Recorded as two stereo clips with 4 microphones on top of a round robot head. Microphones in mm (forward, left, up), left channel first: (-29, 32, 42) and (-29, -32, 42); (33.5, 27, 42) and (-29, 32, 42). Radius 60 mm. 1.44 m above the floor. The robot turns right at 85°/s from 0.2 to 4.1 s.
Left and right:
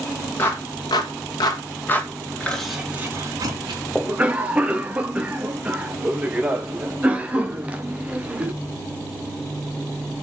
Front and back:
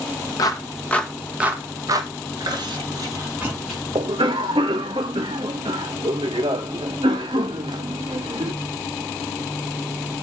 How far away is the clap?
About 1.6 m.